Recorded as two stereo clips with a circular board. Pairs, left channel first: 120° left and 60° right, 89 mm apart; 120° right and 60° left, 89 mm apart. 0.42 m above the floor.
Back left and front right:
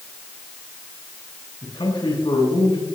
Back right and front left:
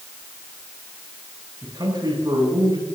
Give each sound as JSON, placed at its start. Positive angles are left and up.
{"t": 1.6, "sound": "a man speaking", "azimuth_deg": 100, "distance_m": 9.5}